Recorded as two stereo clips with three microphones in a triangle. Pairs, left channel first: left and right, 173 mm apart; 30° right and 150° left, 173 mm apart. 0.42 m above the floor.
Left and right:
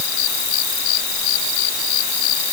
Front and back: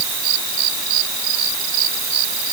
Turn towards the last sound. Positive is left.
No sound to turn to.